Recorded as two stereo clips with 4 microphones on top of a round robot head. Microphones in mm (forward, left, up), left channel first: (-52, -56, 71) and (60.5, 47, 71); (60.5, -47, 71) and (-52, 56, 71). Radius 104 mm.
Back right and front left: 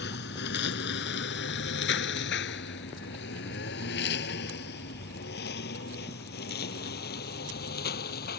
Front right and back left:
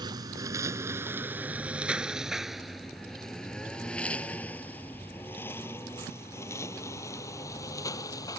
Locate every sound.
0.0 s a lawn mower: 155° right; by 8.4 s 110° right